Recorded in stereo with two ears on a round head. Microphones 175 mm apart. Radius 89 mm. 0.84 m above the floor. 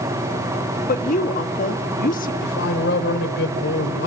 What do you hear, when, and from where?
0.9 s a woman speaking: 45° left (ahead or behind), 1.6 m
2.4 s a man speaking: 65° left (ahead or behind), 4 m